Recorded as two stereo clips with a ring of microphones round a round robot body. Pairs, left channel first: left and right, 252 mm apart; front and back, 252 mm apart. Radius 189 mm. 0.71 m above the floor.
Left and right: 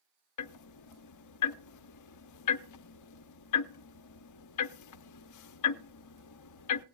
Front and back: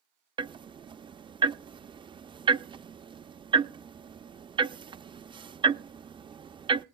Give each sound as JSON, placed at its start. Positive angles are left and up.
{"t": 0.4, "sound": "ticking", "azimuth_deg": 105, "distance_m": 0.5}